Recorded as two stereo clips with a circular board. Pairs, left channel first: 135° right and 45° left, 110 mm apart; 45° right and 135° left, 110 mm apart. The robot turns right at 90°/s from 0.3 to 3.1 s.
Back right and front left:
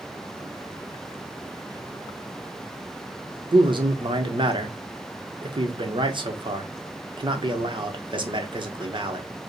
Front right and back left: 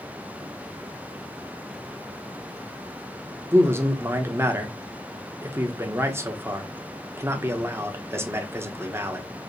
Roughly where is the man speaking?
Left.